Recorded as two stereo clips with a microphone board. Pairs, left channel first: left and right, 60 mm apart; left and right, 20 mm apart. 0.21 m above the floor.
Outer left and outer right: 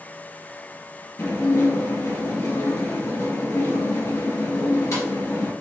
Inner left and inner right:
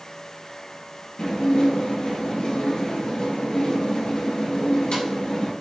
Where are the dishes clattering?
65° left (ahead or behind), 2 m.